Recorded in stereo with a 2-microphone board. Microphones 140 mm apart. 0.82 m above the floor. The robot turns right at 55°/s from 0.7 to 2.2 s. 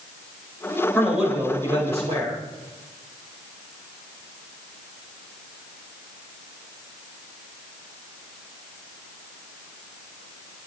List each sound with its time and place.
0.9 s a man speaking: 170° left, 4.5 m; by 2.4 s 120° right, 4.5 m